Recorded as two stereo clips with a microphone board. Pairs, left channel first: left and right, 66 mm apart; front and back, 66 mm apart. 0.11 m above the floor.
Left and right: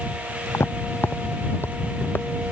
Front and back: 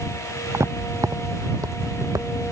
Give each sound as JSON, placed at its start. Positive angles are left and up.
{"t": 0.5, "sound": "footsteps", "azimuth_deg": 135}